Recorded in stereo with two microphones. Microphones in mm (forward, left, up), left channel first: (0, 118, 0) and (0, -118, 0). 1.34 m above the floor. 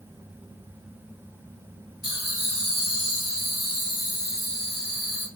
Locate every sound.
2.0 s laughter: 75° left (ahead or behind), 0.6 m